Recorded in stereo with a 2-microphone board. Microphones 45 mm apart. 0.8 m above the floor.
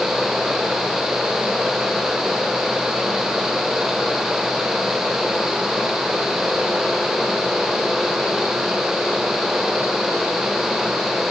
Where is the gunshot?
I don't hear a gunshot.